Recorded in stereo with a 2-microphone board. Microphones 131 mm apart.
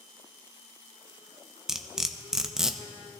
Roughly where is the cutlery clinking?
Centre.